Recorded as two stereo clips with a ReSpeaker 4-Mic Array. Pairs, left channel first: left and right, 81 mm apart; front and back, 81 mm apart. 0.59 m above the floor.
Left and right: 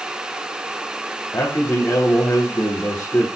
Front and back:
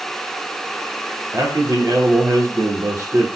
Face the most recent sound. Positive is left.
turn(degrees=145)